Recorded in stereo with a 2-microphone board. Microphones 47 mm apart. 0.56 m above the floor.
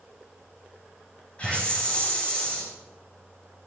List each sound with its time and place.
1.4 s a hiss: 25° left (ahead or behind), 4.5 m